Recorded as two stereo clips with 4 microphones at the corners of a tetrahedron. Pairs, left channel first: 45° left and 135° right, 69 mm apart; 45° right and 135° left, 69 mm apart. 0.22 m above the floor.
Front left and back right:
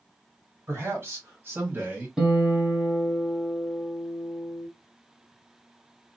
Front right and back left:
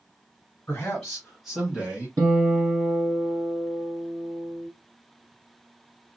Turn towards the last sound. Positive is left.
turn(degrees=150)